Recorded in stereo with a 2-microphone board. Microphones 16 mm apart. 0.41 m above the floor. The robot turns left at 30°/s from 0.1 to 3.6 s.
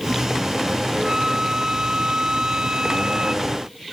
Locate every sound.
0.9 s a flute: 50° right; by 3.5 s 125° right